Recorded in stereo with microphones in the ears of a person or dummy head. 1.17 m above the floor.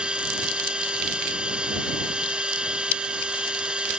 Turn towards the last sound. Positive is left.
turn(degrees=-5)  # may be behind; listen again after turning